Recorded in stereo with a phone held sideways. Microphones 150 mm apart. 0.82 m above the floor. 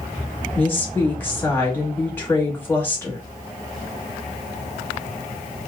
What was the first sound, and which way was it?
A woman speaking, 15° left (ahead or behind).